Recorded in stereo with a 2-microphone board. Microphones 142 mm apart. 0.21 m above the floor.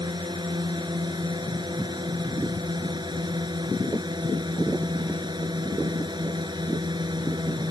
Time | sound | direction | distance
0.0 | a drone | 30° right (ahead or behind) | ?